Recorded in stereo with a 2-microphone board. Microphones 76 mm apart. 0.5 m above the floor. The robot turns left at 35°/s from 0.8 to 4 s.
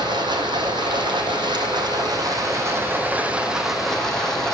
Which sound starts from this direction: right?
Running water, at 0.0 s.